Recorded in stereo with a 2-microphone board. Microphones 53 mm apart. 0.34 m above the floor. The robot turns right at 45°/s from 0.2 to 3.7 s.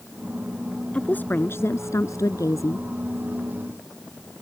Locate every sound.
0.9 s a woman speaking: 25° left; by 2.9 s 110° left